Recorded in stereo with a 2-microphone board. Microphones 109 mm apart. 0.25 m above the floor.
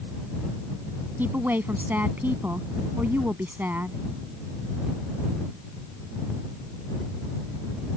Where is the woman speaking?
15° right (ahead or behind).